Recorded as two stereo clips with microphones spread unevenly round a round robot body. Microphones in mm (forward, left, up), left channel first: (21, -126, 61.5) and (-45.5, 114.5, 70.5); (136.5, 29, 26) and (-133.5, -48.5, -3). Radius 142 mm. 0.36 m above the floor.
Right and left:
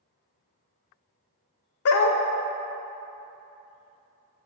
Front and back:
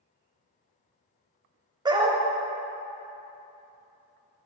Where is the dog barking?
90° right, 0.6 m.